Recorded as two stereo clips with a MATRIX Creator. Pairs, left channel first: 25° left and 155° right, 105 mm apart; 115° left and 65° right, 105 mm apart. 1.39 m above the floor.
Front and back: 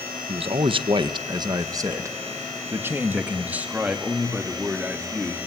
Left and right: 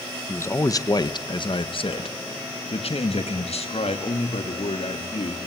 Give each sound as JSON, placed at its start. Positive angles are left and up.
{"t": 0.3, "sound": "a man speaking", "azimuth_deg": 180, "distance_m": 1.5}